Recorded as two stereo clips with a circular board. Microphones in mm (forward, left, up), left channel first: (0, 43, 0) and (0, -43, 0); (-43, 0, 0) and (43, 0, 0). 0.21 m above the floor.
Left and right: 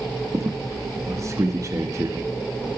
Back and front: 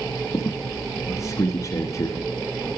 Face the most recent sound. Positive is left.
turn(degrees=-135)